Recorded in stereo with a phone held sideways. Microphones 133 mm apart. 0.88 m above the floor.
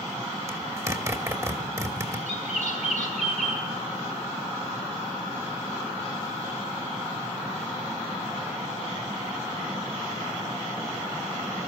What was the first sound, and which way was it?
A zipper, 25° right (ahead or behind).